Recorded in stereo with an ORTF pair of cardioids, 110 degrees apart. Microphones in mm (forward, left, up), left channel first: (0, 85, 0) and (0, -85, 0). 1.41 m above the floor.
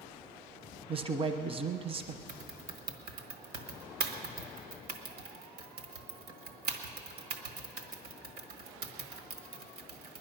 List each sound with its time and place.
0.9 s a man speaking: 35° right, 1.0 m
2.3 s typing on a keyboard: 60° right, 1.4 m